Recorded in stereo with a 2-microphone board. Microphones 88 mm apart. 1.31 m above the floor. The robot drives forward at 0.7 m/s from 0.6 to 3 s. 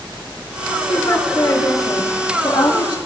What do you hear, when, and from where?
0.9 s a woman speaking: 40° left (ahead or behind), 3 m; by 3.0 s 65° left (ahead or behind), 2 m